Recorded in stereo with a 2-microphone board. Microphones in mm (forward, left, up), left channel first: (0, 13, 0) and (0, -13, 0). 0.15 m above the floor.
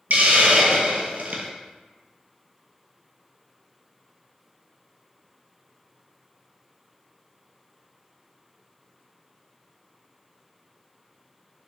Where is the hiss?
75° right (ahead or behind), 0.8 m.